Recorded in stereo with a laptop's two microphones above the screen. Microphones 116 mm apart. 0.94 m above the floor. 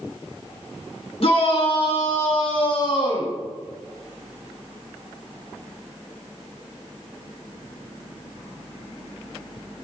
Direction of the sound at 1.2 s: 55° left (ahead or behind).